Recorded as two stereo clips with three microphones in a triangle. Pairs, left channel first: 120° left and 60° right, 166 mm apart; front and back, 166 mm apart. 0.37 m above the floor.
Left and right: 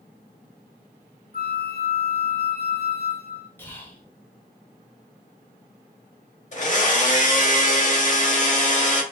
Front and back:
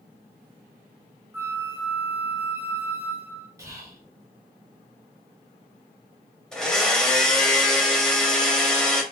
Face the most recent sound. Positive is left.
turn(degrees=85)